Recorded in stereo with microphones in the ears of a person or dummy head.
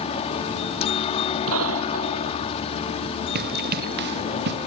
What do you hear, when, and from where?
0.0 s a helicopter: 35° left (ahead or behind)
1.5 s a gunshot: 80° right
3.4 s running footsteps: 55° right (ahead or behind)